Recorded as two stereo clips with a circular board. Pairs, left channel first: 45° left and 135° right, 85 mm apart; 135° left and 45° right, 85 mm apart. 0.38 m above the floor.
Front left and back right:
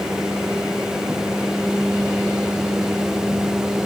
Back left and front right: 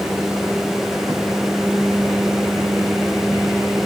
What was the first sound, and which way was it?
Only background noise.